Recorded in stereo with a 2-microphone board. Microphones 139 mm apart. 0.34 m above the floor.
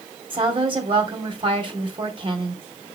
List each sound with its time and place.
0.3 s a woman speaking: 40° right (ahead or behind), 2 m